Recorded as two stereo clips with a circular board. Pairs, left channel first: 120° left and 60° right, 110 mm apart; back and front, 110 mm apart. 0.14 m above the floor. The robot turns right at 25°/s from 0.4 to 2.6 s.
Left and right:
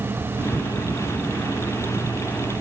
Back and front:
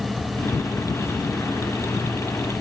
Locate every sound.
Only background noise.